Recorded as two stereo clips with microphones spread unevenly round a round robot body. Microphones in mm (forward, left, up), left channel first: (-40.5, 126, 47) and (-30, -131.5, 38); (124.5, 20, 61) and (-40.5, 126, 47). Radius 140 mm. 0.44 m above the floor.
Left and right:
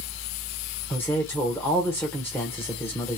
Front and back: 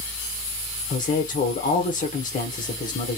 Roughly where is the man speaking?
Ahead.